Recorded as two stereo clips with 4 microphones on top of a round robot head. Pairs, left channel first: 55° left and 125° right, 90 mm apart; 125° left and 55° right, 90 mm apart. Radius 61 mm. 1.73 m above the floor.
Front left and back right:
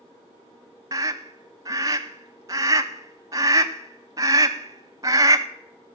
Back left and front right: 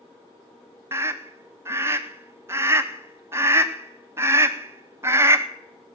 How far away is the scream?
About 0.6 m.